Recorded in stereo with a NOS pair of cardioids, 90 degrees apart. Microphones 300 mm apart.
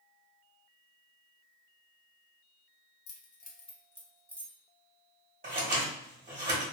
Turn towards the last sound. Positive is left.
turn(degrees=-30)